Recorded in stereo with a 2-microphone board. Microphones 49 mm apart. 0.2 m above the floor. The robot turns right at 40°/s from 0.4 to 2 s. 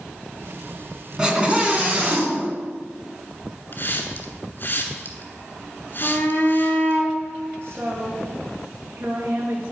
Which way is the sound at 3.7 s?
50° left (ahead or behind).